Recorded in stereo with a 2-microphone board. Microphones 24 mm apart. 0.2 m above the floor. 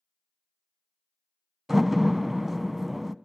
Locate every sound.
1.7 s a door slam: 10° right (ahead or behind), 0.9 m